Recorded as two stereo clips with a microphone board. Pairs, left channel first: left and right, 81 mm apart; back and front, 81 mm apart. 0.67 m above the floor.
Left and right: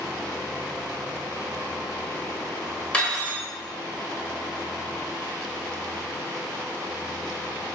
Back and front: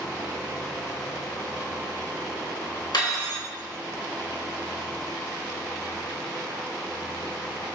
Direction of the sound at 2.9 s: 165° left.